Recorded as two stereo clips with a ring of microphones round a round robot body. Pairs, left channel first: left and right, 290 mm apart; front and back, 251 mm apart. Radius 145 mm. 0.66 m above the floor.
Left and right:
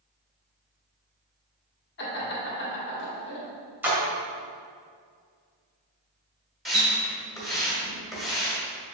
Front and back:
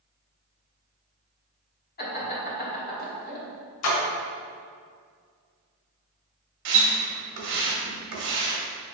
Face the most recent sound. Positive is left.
turn(degrees=180)